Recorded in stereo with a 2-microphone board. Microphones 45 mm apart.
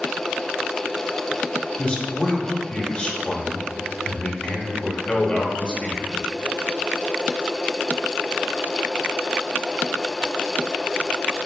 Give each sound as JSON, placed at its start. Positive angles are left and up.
{"t": 1.8, "sound": "a man speaking", "side_deg": 25, "distance_m": 0.8}